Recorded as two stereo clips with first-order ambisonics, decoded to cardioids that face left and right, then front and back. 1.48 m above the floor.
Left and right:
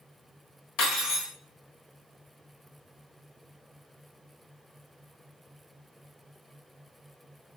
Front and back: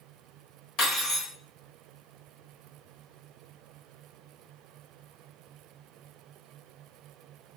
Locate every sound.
0.8 s cutlery clinking: 45° left, 1.2 m